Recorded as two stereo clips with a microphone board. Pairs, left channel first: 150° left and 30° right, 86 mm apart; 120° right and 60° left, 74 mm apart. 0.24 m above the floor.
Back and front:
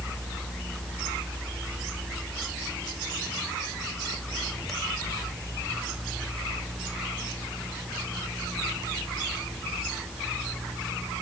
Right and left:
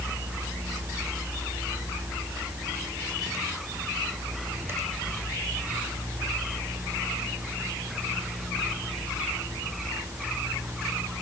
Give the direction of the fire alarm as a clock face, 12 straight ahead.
I don't hear a fire alarm.